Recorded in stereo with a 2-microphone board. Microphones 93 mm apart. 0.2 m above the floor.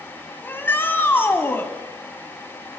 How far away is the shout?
About 1.4 m.